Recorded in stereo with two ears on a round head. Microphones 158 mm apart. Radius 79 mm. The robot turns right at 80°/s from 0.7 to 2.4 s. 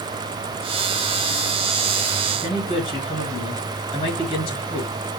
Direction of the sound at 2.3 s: 30° left (ahead or behind).